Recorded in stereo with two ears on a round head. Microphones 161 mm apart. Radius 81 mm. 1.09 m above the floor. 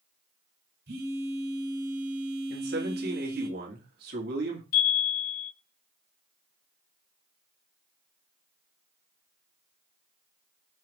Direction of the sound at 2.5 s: 55° right (ahead or behind).